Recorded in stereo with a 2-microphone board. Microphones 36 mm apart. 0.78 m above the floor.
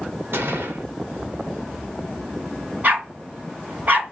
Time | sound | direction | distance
0.3 | a gunshot | 85° right | 1.3 m
2.8 | a dog barking | 45° right (ahead or behind) | 3 m